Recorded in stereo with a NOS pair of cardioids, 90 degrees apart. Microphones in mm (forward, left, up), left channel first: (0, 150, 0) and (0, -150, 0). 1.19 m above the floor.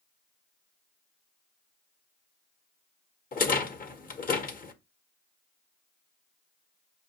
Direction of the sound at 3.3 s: 30° left.